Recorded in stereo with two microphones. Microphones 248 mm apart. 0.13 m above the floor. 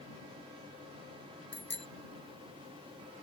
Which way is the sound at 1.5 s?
45° left (ahead or behind).